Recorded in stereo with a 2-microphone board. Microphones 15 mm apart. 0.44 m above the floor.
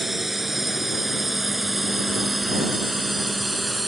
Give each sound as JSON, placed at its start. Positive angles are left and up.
{"t": 0.0, "sound": "a drone", "side_deg": -10}